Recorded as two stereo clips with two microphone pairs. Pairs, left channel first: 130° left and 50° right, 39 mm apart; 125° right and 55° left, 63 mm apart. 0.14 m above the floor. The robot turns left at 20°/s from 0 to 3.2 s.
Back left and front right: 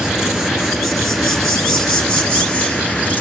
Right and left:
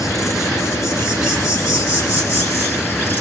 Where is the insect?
115° right, 4 m; by 3.2 s straight behind, 4 m.